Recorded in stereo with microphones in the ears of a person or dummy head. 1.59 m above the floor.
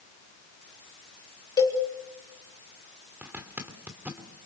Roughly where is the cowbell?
Left.